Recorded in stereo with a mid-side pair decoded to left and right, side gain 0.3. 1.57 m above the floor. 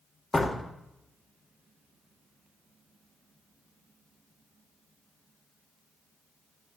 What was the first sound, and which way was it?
A door slam, 35° left.